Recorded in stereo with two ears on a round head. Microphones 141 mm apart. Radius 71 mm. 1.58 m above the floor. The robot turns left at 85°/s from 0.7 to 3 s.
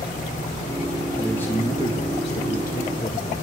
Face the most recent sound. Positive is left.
turn(degrees=30)